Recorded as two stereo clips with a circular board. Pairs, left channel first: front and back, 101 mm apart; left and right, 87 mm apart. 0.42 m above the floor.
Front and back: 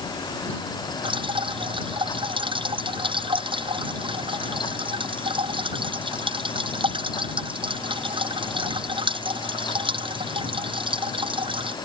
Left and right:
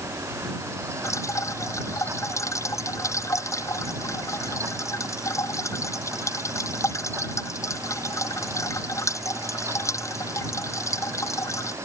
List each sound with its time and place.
1.0 s dripping: 145° left